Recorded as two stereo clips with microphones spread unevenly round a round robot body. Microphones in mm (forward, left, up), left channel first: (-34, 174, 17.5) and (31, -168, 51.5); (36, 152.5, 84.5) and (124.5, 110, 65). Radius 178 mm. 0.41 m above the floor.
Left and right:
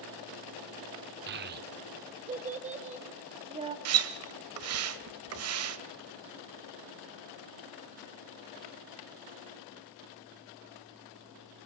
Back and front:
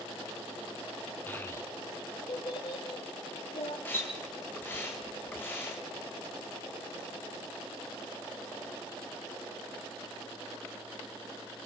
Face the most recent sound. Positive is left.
turn(degrees=-125)